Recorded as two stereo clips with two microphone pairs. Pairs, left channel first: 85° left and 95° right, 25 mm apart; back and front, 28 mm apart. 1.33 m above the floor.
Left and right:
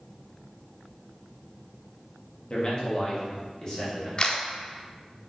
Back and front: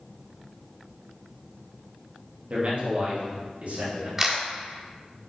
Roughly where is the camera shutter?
Ahead left.